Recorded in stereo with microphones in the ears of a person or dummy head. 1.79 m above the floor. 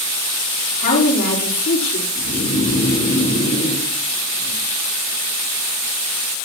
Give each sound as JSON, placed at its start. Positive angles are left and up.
{"t": 0.7, "sound": "a woman speaking", "side_deg": 60, "distance_m": 4.5}
{"t": 2.1, "sound": "snoring", "side_deg": 50, "distance_m": 4.0}